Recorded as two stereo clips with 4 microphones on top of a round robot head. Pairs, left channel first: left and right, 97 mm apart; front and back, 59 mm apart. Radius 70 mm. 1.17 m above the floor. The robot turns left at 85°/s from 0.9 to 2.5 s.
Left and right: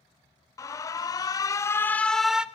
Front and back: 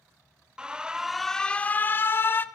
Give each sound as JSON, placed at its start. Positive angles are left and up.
{"t": 0.6, "sound": "an alarm", "azimuth_deg": 115, "distance_m": 1.1}